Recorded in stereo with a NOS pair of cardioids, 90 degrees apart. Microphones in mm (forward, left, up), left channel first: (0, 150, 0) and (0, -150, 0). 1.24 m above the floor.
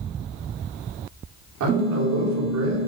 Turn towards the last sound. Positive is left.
turn(degrees=-55)